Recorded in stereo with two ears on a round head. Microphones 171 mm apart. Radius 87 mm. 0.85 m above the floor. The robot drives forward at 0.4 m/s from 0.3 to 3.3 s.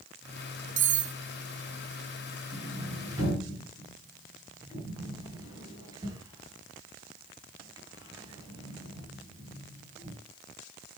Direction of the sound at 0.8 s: 45° right (ahead or behind).